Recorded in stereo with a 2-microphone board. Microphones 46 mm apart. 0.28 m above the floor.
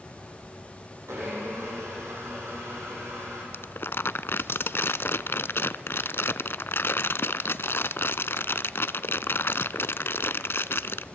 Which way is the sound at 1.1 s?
80° right.